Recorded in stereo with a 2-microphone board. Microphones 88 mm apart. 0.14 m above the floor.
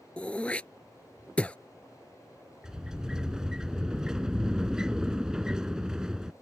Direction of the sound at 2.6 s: 5° right (ahead or behind).